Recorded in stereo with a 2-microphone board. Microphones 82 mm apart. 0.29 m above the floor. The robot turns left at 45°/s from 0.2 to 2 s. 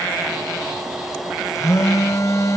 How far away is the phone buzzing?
About 1.2 m.